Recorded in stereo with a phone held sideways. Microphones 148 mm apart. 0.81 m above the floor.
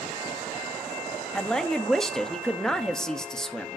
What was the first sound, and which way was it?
A woman speaking, 5° left (ahead or behind).